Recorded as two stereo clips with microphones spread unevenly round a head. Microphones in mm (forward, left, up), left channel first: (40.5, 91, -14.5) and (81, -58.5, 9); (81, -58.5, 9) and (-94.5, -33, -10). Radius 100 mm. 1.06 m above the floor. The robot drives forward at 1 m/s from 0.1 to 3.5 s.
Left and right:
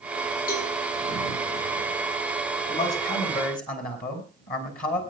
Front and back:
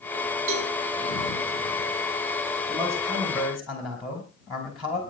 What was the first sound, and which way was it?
A cowbell, 155° left.